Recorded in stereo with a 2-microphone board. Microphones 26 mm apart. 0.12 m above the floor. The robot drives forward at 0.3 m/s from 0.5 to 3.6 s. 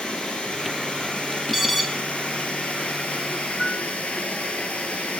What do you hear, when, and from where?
0.0 s running water: 40° left (ahead or behind), 2 m; by 5.2 s 55° left (ahead or behind), 1.7 m
1.5 s an alarm: centre (ahead or behind), 1.2 m
3.6 s a piano: 5° right (ahead or behind), 1.2 m